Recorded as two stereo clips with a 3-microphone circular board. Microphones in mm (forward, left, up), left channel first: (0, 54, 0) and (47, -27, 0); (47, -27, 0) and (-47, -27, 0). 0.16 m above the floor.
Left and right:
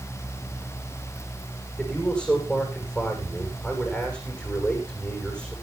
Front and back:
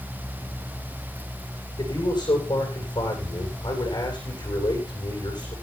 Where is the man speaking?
40° left, 10 m.